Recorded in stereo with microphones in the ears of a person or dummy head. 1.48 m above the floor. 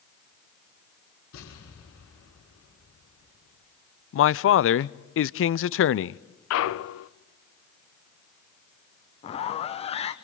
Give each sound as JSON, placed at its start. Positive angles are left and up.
{"t": 1.3, "sound": "an explosion", "side_deg": 80, "distance_m": 7.0}
{"t": 4.1, "sound": "a man speaking", "side_deg": 60, "distance_m": 0.5}
{"t": 6.5, "sound": "a clunk", "side_deg": 80, "distance_m": 0.7}
{"t": 9.2, "sound": "a zipper", "side_deg": 30, "distance_m": 1.2}